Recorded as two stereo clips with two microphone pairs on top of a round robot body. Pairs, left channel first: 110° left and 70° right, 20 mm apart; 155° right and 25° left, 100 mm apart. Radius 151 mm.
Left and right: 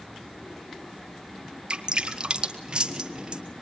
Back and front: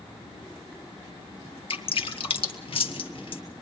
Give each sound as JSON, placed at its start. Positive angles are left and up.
{"t": 1.7, "sound": "dripping", "azimuth_deg": -125, "distance_m": 2.0}